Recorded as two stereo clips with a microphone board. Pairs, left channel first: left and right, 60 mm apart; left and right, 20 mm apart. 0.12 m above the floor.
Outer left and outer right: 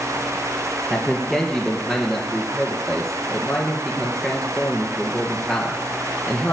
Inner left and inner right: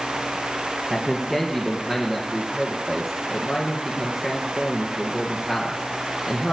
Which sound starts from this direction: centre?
A man speaking, at 0.9 s.